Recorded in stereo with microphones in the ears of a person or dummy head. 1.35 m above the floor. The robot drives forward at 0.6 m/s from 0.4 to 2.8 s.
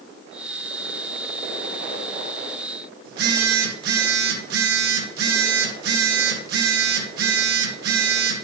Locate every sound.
3.0 s a phone buzzing: 65° right (ahead or behind), 2.0 m